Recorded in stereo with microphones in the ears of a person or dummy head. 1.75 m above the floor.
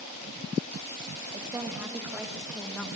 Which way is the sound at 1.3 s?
20° right (ahead or behind).